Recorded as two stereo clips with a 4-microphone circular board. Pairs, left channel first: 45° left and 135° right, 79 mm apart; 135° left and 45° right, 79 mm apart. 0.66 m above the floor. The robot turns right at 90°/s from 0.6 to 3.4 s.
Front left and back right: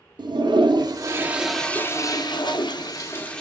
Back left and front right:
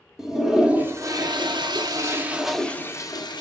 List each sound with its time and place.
0.2 s a toilet flushing: 130° right, 0.8 m; by 3.4 s 125° left, 0.8 m